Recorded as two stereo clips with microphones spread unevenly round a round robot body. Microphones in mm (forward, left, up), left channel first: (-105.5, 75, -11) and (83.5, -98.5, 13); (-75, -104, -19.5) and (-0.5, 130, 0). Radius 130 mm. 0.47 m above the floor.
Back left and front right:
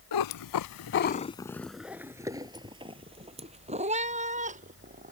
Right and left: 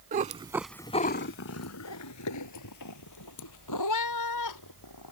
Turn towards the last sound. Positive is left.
turn(degrees=-105)